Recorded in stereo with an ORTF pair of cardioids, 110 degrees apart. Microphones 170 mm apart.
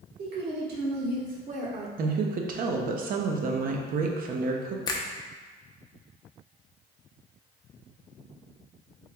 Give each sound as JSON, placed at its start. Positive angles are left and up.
{"t": 0.2, "sound": "a woman speaking", "azimuth_deg": -70, "distance_m": 1.7}
{"t": 2.0, "sound": "a woman speaking", "azimuth_deg": -55, "distance_m": 0.7}
{"t": 4.9, "sound": "a finger snap", "azimuth_deg": 20, "distance_m": 0.6}